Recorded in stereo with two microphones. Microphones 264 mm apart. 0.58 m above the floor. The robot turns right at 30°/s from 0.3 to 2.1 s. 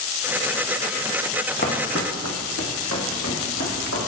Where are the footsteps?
40° left (ahead or behind), 1.3 m; by 4.0 s 75° left (ahead or behind), 3.5 m.